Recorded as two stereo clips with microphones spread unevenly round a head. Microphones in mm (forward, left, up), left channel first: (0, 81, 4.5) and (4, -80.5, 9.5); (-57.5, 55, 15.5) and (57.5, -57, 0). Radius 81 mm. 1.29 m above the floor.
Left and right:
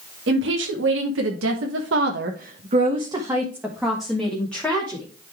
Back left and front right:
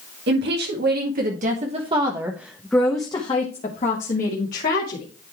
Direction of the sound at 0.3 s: 70° right.